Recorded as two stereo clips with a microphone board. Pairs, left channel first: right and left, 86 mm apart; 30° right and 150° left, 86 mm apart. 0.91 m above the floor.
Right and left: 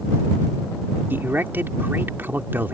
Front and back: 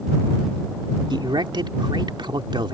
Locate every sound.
1.1 s a man speaking: 155° left